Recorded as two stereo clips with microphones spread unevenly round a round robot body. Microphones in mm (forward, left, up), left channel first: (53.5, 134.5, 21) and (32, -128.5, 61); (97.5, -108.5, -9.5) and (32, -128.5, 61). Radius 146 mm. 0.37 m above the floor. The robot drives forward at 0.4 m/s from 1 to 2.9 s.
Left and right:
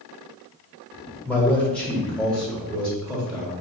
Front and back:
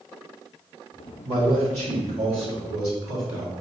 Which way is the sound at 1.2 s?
150° left.